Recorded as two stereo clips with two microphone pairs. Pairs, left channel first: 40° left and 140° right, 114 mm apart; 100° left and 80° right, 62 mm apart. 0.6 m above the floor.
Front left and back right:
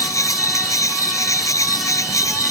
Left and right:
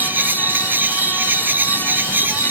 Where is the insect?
20° right.